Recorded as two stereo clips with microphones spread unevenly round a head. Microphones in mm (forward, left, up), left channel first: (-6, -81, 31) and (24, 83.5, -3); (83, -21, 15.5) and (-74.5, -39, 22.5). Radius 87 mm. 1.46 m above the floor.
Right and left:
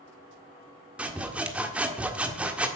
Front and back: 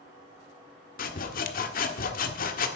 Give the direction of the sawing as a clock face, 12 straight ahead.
12 o'clock.